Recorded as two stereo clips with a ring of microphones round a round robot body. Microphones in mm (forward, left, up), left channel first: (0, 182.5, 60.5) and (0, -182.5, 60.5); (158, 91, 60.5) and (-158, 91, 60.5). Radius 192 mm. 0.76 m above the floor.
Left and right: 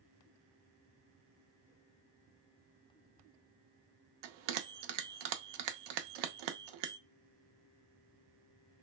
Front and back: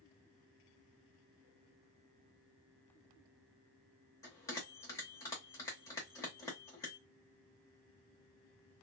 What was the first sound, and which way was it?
A bell, 80° right.